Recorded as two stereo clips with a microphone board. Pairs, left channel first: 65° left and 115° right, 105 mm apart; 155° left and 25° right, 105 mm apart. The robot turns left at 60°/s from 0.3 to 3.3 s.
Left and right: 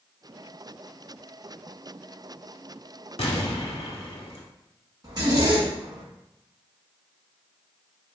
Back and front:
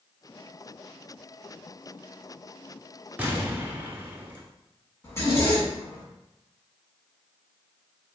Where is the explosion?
50° left, 0.7 m; by 4.4 s 45° left, 0.7 m.